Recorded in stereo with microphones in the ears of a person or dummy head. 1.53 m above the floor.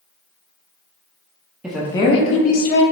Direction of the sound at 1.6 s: 5° right (ahead or behind).